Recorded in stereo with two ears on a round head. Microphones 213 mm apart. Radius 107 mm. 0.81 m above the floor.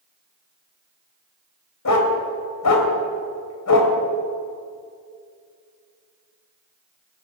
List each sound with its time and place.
1.9 s a dog barking: 80° left, 1.8 m